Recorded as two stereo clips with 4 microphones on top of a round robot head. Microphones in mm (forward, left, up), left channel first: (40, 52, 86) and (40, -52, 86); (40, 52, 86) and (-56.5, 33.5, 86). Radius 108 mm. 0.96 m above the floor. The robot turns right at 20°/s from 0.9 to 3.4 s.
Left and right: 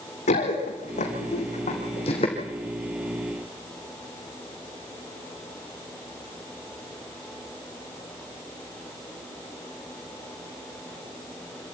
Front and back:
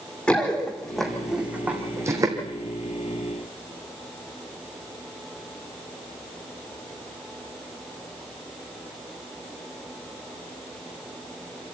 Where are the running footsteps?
90° left, 4 m; by 2.4 s 140° left, 3 m.